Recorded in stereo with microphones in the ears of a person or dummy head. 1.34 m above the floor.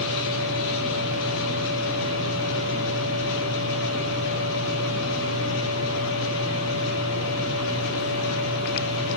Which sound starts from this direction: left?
A machine running, at 0.0 s.